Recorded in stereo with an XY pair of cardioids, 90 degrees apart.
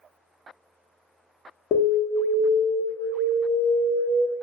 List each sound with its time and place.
1.7 s an alarm: 70° left, 0.7 m